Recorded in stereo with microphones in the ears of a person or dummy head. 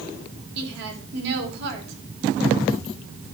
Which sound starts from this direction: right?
A woman speaking, at 0.6 s.